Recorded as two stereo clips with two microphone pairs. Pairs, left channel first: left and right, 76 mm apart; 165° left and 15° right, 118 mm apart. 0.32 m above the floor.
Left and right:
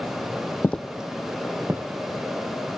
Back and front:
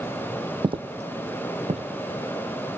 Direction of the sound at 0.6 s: 30° left.